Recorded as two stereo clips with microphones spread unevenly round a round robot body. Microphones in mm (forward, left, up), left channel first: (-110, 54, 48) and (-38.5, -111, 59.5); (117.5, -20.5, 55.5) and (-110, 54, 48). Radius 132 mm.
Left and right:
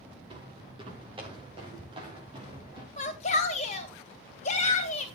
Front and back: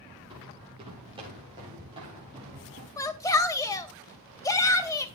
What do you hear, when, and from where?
0.3 s footsteps: 125° right, 8.5 m; by 2.9 s 130° right, 6.5 m
3.0 s a shout: 60° left, 2.5 m